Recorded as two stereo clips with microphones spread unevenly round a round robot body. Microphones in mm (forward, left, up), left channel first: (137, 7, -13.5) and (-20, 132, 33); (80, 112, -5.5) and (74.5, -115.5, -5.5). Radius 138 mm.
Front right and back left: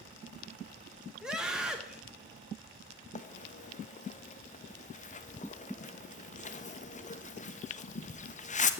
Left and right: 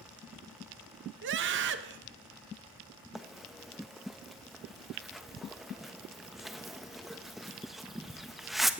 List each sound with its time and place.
1.2 s a scream: 120° right, 0.8 m
3.1 s a bird: 5° right, 1.1 m